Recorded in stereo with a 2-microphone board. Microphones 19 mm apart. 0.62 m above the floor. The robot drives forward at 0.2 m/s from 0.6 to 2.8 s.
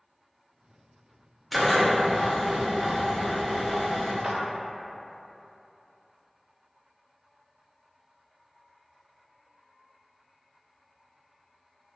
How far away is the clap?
About 0.5 m.